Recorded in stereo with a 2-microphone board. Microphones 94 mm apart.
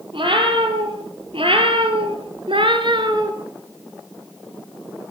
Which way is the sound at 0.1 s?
70° right (ahead or behind).